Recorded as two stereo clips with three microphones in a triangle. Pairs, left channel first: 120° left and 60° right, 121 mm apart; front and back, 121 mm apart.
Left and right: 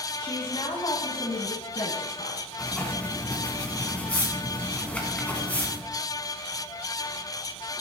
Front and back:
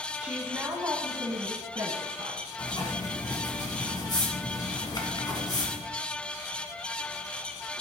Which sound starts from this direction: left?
A woman speaking, at 0.2 s.